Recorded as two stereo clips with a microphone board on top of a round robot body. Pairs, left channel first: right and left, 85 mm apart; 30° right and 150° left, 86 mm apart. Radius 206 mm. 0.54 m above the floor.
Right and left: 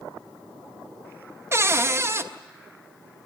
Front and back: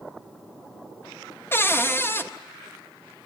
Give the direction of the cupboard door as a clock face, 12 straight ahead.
11 o'clock.